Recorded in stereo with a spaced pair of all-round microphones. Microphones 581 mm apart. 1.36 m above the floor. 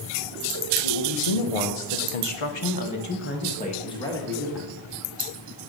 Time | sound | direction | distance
0.8 | a man speaking | 65° left (ahead or behind) | 1.4 m